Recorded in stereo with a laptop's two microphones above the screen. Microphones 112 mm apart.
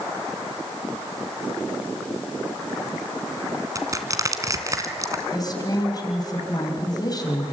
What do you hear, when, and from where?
3.8 s crushing: 30° right (ahead or behind), 2 m
5.3 s a woman speaking: 35° left (ahead or behind), 4.5 m